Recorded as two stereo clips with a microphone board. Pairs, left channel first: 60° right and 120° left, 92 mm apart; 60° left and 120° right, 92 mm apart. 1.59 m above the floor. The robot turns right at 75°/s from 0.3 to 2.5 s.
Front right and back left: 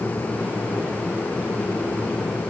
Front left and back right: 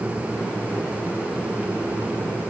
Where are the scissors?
I don't hear scissors.